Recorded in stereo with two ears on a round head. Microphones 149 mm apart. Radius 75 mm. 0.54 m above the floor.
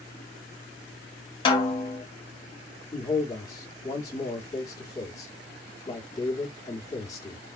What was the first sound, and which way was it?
A snare drum, 30° left (ahead or behind).